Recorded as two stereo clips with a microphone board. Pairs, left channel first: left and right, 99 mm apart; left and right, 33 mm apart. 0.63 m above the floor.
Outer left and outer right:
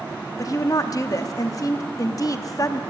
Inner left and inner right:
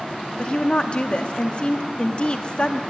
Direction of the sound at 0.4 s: 35° left (ahead or behind).